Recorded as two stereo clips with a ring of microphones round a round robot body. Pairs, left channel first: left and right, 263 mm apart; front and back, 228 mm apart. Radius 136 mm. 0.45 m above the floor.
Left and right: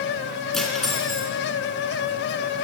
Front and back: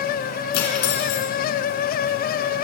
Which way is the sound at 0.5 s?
Straight ahead.